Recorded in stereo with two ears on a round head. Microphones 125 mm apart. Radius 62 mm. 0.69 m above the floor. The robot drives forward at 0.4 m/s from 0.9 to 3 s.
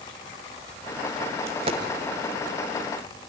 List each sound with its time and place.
1.5 s a dropped coin: 45° right (ahead or behind), 1.4 m; by 1.8 s 40° right (ahead or behind), 1.5 m